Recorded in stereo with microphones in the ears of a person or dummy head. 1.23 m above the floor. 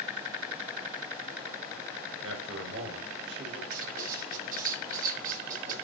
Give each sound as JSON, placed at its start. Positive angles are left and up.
{"t": 2.2, "sound": "a man speaking", "side_deg": -75, "distance_m": 5.5}
{"t": 3.7, "sound": "writing", "side_deg": -45, "distance_m": 7.5}